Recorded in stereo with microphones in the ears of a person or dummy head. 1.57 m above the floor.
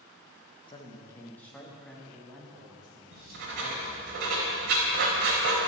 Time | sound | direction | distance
0.7 | a man speaking | 30° left (ahead or behind) | 2.0 m
3.1 | writing | 60° right (ahead or behind) | 4 m